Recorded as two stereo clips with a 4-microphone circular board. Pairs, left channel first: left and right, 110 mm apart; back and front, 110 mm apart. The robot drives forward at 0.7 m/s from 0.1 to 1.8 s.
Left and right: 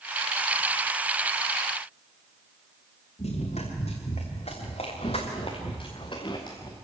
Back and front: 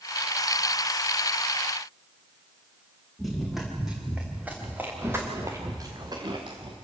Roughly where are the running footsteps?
Left.